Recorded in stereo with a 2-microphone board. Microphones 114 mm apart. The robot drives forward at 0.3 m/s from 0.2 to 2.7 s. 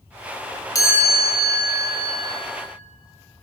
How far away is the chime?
About 1.3 m.